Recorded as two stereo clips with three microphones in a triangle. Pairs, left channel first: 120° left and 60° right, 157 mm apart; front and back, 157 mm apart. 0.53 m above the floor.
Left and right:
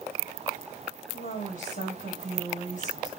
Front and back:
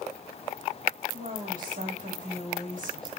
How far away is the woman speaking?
About 2.5 m.